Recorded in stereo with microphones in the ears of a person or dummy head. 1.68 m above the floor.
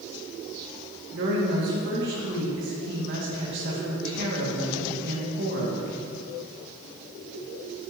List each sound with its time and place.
1.1 s a woman speaking: 60° right (ahead or behind), 2 m